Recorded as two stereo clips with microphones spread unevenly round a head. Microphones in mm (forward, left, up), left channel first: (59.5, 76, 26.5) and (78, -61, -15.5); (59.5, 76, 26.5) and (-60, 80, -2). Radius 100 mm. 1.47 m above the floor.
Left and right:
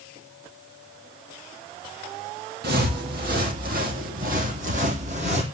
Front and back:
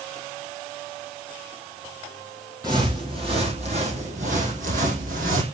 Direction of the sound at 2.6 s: 105° right.